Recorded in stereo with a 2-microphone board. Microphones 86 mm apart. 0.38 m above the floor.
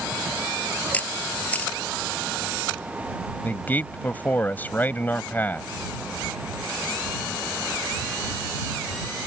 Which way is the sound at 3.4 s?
20° left (ahead or behind).